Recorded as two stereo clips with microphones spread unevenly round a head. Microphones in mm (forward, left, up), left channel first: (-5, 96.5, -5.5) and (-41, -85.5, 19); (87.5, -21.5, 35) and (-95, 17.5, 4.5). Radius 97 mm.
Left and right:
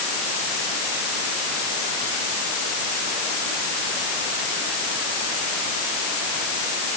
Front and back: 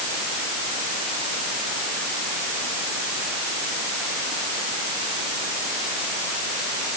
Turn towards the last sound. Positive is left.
No sound to turn to.